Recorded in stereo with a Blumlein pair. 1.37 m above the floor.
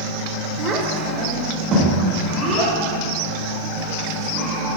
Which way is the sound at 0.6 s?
30° right.